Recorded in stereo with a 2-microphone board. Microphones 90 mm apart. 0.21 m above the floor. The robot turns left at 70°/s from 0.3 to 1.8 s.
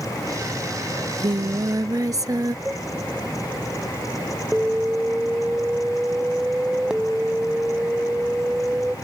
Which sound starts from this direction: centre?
An alarm, at 4.5 s.